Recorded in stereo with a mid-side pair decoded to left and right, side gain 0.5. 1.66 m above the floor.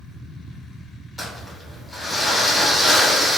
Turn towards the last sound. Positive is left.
turn(degrees=10)